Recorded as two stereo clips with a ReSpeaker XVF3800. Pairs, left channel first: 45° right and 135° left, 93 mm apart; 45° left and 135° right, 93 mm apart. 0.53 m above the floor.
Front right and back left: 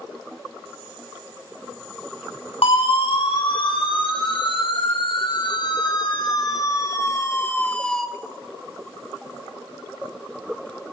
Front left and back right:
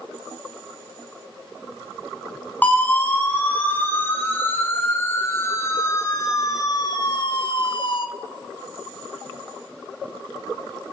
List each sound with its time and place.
2.6 s a siren: 30° right, 4 m; by 8.1 s 40° left, 1.3 m